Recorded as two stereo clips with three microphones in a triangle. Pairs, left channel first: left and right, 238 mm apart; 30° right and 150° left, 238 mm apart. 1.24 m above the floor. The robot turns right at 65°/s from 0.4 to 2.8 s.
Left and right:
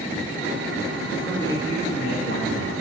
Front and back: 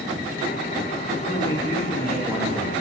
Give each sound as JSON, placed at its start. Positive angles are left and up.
{"t": 1.3, "sound": "a man speaking", "azimuth_deg": 0, "distance_m": 2.5}